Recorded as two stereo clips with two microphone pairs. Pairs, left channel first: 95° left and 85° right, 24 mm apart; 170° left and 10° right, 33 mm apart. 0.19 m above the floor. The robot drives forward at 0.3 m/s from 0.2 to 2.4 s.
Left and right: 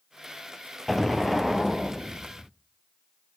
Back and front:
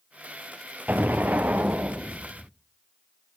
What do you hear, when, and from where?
0.9 s an explosion: 15° left, 1.5 m; by 2.5 s 20° left, 1.1 m